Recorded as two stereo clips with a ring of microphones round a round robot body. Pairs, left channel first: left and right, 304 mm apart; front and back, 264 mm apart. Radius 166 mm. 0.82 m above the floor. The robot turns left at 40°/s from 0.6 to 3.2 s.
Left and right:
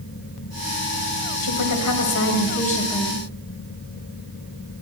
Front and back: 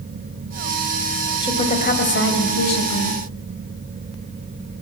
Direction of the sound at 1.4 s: 75° left.